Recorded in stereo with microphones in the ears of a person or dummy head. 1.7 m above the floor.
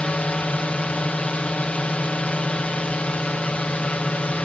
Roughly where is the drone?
Centre.